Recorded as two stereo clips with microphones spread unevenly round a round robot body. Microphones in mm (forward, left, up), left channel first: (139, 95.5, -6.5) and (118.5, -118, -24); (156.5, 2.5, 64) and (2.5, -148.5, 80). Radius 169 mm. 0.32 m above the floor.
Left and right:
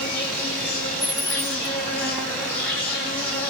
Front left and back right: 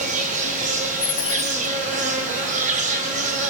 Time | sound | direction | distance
0.0 | an insect | 170° left | 3.5 m
1.0 | a dropped coin | 10° left | 0.8 m